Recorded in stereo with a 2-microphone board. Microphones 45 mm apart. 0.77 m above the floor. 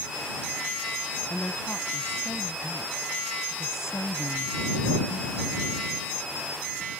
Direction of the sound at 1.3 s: 45° left (ahead or behind).